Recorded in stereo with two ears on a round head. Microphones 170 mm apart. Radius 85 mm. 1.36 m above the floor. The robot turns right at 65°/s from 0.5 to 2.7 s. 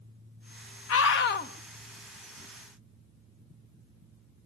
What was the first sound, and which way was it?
A scream, 95° left.